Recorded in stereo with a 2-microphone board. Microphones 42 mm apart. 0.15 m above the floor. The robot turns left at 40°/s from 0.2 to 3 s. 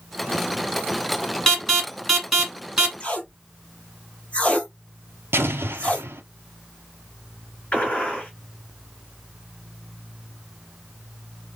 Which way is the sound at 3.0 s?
30° left (ahead or behind).